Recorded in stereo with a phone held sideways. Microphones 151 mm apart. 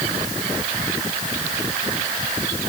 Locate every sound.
Only background noise.